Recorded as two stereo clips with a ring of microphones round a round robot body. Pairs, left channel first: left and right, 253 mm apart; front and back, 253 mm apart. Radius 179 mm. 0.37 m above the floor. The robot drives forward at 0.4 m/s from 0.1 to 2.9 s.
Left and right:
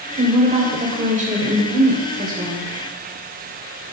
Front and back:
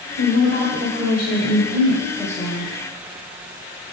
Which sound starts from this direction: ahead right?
A woman speaking, at 0.2 s.